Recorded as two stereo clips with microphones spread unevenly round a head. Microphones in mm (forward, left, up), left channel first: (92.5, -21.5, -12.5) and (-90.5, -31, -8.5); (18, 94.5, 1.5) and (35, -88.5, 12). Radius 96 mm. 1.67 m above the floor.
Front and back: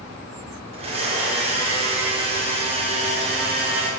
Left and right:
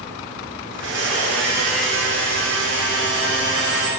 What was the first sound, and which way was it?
A blender, 120° right.